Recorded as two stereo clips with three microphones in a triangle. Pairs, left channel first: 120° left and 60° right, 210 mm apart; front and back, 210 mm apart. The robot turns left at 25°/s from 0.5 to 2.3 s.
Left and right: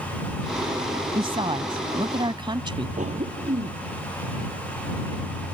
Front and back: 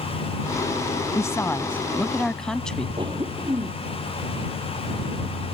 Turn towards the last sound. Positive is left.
turn(degrees=-115)